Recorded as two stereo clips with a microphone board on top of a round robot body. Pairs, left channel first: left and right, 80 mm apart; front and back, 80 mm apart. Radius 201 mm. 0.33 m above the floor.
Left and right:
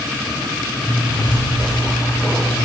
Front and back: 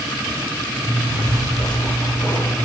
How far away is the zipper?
About 7 m.